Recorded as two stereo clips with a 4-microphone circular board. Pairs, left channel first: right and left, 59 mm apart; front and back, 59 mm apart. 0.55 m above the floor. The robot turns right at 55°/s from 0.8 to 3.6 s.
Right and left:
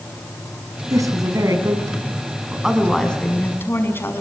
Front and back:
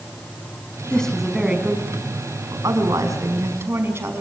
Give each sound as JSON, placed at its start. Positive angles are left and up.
{"t": 0.9, "sound": "a woman speaking", "azimuth_deg": 75, "distance_m": 5.5}